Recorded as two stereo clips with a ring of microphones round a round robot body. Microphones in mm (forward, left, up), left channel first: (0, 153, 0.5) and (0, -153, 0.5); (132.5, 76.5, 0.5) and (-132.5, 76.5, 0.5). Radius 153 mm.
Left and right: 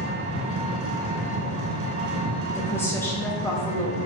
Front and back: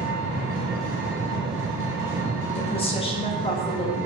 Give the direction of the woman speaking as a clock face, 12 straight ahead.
11 o'clock.